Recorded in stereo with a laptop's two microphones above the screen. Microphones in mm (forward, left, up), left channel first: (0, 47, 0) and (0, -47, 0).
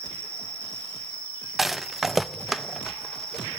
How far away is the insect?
About 3 m.